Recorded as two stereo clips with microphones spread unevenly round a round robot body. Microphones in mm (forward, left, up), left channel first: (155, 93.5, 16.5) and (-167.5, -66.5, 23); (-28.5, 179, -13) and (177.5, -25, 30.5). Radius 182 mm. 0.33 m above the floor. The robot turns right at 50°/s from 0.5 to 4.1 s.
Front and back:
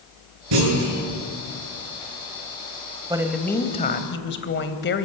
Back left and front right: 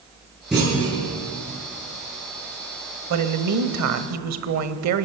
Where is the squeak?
No squeak in this recording.